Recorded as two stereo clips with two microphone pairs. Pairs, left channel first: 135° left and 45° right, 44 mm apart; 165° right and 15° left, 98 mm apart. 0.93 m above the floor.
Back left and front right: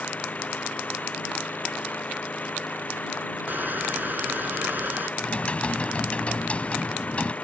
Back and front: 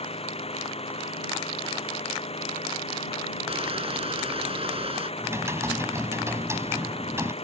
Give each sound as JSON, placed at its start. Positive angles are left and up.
{"t": 0.0, "sound": "an engine running", "azimuth_deg": -170}
{"t": 3.5, "sound": "crushing", "azimuth_deg": 0}
{"t": 5.2, "sound": "typing on a keyboard", "azimuth_deg": 75}